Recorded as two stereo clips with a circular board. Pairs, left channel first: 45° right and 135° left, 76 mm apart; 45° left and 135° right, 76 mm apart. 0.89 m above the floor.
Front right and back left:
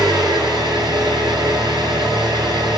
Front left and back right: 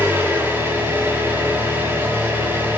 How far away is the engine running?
About 5 m.